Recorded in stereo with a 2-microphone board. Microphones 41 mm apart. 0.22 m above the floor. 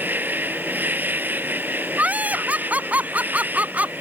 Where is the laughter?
45° right (ahead or behind).